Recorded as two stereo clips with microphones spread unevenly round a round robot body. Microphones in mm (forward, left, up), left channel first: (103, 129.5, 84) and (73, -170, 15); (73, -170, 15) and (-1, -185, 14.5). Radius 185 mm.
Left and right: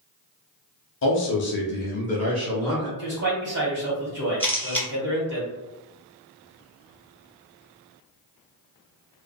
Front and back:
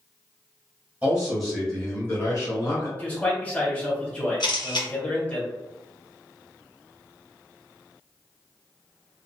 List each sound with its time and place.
1.0 s a man speaking: 130° left, 1.0 m; by 2.9 s 10° right, 1.2 m
3.0 s a man speaking: 60° right, 1.9 m
4.4 s a camera shutter: 5° right, 1.7 m